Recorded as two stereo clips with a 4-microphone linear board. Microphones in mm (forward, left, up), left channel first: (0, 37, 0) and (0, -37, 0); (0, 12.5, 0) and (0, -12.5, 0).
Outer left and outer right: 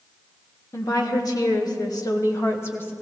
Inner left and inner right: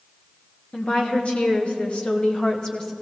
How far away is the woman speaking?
About 2.0 m.